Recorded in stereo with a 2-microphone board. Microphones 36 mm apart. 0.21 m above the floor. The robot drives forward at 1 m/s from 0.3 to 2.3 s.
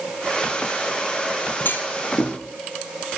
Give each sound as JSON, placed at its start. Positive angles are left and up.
{"t": 1.6, "sound": "a clunk", "side_deg": 70, "distance_m": 2.5}